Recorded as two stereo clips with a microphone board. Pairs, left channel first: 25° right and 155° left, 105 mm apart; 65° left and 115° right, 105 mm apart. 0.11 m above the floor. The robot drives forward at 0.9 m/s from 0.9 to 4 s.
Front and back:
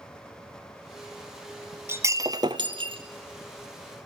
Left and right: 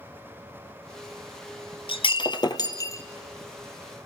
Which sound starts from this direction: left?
Breaking glass, at 1.9 s.